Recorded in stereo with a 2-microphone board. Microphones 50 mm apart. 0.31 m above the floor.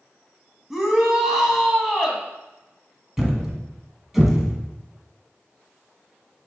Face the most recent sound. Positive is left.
turn(degrees=-5)  # may be behind; listen again after turning